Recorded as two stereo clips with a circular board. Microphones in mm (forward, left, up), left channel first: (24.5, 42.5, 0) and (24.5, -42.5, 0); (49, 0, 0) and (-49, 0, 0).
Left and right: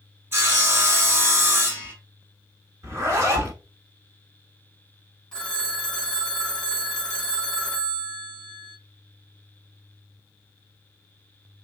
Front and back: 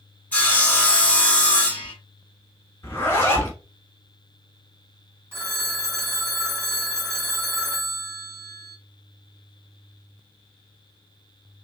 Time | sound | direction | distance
0.3 | sawing | 60° right | 1.1 m
2.8 | a zipper | 55° right | 1.1 m
5.3 | a phone ringing | 155° left | 0.7 m